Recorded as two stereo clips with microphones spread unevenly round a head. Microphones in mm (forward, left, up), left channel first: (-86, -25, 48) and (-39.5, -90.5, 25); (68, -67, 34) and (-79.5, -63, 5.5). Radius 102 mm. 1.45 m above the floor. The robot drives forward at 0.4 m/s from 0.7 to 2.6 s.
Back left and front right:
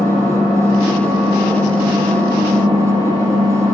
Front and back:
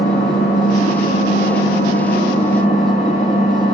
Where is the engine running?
30° right, 7 m; by 3.8 s 35° right, 6.5 m.